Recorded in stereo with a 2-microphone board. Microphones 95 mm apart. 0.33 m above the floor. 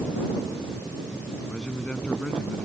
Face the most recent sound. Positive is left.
turn(degrees=5)  # may be behind; listen again after turning